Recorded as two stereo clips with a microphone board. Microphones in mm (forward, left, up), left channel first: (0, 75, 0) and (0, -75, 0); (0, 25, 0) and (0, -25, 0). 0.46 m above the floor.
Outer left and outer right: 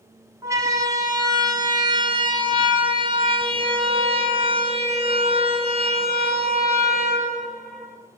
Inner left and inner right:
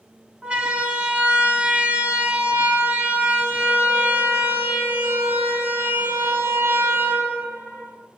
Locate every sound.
0.4 s a siren: 20° right (ahead or behind), 5.5 m; by 8.0 s 55° right (ahead or behind), 7.5 m